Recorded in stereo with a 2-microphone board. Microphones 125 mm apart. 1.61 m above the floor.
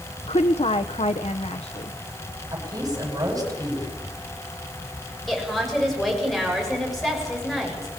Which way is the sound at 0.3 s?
65° left (ahead or behind).